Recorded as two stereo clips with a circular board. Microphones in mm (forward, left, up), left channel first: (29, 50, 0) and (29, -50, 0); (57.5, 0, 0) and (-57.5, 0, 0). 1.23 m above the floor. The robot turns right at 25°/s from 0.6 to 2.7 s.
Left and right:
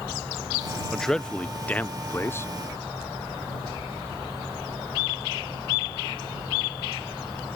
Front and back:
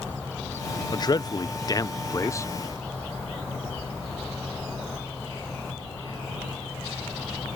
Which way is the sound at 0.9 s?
5° left.